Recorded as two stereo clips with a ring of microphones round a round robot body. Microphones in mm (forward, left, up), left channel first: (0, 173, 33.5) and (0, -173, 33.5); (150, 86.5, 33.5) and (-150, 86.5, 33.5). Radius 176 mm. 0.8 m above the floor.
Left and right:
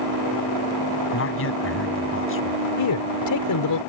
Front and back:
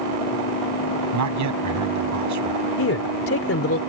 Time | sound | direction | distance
1.1 | a man speaking | 145° left | ?
2.8 | a man speaking | 45° left | ?